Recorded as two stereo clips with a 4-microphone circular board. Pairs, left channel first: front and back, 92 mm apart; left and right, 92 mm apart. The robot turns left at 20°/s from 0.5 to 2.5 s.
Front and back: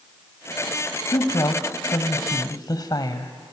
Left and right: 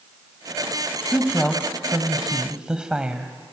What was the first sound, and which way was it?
A woman speaking, 15° left.